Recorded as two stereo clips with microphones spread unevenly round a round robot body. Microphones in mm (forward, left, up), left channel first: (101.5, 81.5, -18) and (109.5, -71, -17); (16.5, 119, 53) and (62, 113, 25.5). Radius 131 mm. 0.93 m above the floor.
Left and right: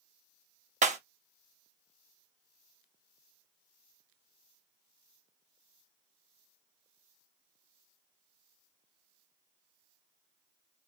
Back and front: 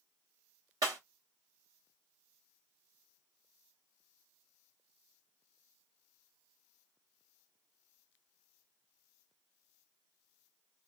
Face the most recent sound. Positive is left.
turn(degrees=-45)